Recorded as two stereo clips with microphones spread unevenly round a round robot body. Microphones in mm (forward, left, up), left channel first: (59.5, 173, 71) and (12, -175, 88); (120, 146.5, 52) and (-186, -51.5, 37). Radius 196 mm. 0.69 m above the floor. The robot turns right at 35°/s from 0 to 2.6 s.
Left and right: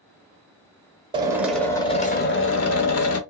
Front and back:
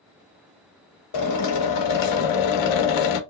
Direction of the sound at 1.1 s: 20° right.